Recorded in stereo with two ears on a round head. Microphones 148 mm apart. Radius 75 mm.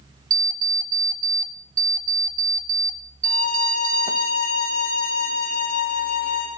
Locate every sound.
0.3 s an alarm clock: 25° right (ahead or behind), 0.5 m
3.2 s a violin: 70° left (ahead or behind), 4 m